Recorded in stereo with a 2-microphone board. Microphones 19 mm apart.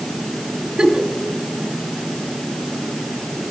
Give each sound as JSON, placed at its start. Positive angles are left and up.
{"t": 0.8, "sound": "a giggle", "side_deg": -55, "distance_m": 1.0}